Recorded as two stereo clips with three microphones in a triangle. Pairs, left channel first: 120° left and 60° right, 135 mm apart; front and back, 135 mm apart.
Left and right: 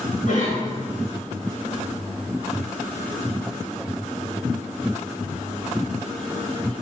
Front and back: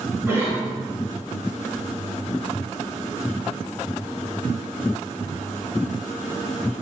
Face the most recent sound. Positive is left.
turn(degrees=105)